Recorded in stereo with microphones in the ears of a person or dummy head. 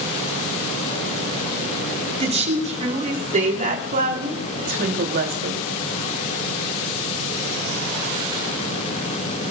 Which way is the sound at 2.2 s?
30° right (ahead or behind).